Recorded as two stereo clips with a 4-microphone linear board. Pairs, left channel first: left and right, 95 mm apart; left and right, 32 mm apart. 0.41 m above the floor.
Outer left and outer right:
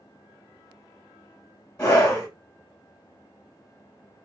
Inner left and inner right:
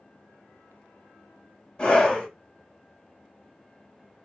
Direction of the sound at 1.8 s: 20° left (ahead or behind).